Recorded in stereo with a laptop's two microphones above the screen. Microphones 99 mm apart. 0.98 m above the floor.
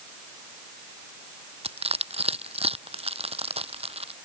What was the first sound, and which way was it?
Crushing, 85° right.